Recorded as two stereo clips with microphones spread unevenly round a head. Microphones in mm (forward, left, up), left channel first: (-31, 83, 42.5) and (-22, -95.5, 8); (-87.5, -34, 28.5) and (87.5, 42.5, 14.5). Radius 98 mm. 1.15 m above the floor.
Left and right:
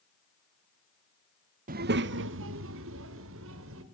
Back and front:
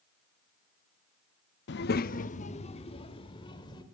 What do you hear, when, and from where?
1.7 s a child speaking: 135° right, 0.7 m; by 3.8 s 90° right, 3 m